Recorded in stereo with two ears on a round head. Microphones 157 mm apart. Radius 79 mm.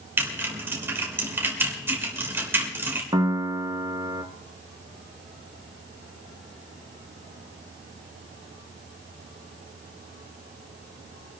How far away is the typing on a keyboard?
About 3 m.